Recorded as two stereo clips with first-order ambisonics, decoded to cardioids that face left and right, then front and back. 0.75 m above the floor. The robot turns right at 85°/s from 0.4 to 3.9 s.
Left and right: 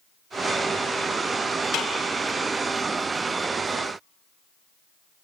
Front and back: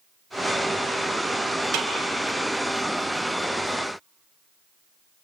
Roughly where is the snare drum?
Behind left.